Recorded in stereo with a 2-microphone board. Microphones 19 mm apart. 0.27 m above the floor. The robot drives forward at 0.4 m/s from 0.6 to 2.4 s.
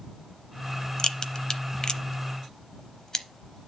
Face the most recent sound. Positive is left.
turn(degrees=35)  # may be behind; listen again after turning